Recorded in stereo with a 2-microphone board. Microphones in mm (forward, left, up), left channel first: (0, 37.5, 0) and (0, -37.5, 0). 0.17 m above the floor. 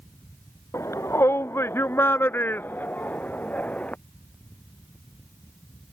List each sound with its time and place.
0.7 s a shout: 40° left (ahead or behind); by 4.0 s 20° left (ahead or behind)